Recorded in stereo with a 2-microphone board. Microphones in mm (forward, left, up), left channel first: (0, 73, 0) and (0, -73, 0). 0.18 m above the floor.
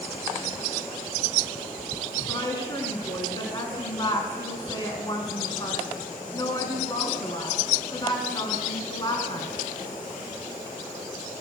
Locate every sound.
2.3 s a woman speaking: 30° left (ahead or behind), 2 m